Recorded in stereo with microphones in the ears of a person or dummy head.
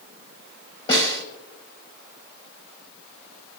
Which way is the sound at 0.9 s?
25° left (ahead or behind).